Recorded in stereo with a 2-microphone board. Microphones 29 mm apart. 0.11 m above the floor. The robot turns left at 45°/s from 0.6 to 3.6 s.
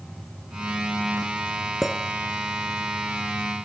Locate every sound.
1.8 s a clink: 5° right (ahead or behind), 0.8 m; by 2.0 s centre (ahead or behind), 0.8 m